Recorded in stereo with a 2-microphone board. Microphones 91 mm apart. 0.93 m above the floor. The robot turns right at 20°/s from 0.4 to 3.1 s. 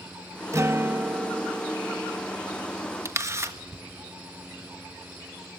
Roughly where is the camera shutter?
Right.